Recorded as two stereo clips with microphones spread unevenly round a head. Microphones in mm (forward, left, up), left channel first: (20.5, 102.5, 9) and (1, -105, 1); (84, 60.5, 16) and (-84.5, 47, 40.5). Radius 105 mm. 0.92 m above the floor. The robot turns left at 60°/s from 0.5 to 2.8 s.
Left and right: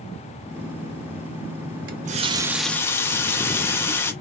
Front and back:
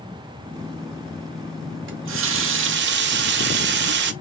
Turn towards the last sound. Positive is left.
turn(degrees=165)